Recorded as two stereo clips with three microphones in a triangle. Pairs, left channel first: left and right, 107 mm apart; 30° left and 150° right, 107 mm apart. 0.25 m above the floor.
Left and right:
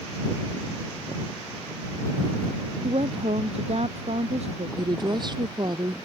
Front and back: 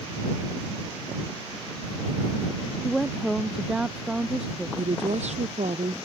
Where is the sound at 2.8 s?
60° right; by 4.7 s 70° right.